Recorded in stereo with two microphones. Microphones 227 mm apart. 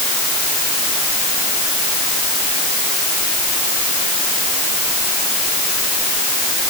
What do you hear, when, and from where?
Only background noise.